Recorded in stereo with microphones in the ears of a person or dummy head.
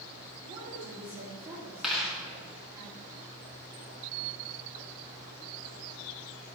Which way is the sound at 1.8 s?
Centre (ahead or behind).